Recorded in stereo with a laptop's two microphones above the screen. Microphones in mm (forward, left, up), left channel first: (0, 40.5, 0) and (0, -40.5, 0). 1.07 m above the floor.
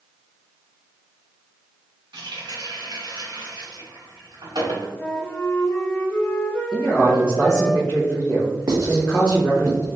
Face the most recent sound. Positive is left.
turn(degrees=-40)  # may be behind; listen again after turning